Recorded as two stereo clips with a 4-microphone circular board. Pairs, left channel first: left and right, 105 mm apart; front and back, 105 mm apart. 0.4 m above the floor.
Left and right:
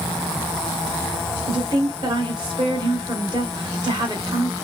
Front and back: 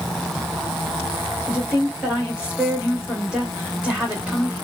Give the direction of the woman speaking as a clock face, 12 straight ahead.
3 o'clock.